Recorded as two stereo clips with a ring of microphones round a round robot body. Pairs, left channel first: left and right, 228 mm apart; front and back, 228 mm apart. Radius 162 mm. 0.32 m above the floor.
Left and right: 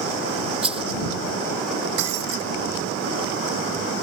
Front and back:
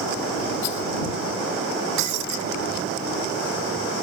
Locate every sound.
0.6 s a rattle: 25° right
2.0 s breaking glass: 140° right